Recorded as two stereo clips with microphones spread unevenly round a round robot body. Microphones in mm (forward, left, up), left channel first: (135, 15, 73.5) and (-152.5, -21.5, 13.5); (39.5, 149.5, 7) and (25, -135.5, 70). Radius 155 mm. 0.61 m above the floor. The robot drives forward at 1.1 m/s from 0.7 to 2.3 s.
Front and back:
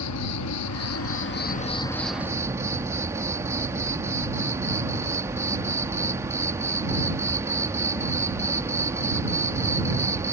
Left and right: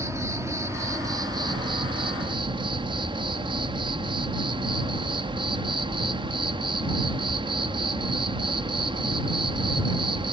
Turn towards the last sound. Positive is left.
turn(degrees=-175)